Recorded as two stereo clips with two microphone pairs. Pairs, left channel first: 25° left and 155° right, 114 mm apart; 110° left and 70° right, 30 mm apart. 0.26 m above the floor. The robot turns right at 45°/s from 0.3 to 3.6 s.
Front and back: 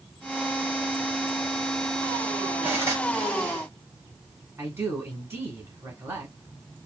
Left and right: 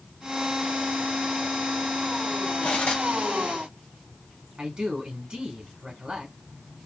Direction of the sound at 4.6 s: 105° right.